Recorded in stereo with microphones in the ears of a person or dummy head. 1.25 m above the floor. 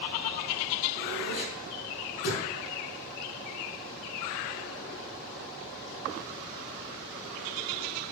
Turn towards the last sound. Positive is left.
turn(degrees=70)  # may be behind; listen again after turning